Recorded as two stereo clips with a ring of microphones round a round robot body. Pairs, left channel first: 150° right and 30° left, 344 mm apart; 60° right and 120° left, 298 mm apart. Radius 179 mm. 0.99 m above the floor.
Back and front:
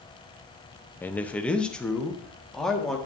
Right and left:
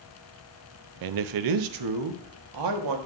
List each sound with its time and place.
1.0 s a man speaking: 125° left, 0.5 m; by 3.0 s 120° left, 1.7 m